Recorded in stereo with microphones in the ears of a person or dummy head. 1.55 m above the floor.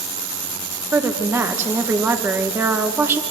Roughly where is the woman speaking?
Centre.